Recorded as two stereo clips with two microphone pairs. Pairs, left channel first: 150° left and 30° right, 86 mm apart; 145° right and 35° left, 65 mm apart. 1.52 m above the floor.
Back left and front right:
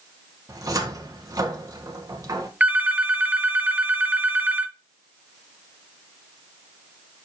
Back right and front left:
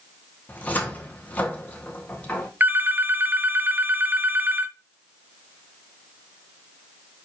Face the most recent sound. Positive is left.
turn(degrees=25)